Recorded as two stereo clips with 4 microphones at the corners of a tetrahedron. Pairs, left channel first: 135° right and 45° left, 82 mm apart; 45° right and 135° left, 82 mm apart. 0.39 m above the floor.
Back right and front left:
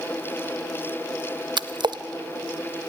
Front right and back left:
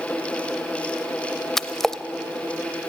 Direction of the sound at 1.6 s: 40° left.